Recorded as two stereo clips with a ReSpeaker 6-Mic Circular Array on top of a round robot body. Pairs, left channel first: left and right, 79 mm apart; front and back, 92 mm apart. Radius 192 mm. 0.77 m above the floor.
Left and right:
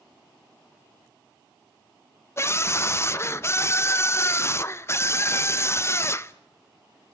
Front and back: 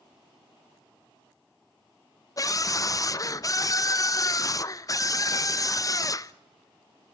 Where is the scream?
40° left, 1.0 m.